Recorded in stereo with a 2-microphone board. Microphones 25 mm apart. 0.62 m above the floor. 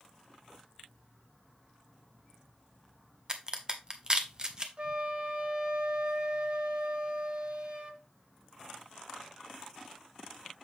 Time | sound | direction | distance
3.3 | a crack | 30° right (ahead or behind) | 0.9 m
4.8 | a flute | 45° right (ahead or behind) | 1.1 m